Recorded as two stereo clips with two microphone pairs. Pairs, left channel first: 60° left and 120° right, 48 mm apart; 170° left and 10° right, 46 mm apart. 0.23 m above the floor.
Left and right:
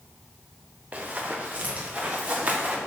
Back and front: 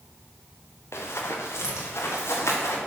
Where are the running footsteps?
Straight behind, 2.0 m.